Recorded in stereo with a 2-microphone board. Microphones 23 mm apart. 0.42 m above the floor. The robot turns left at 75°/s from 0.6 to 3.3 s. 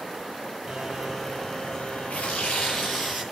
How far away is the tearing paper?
About 7.5 m.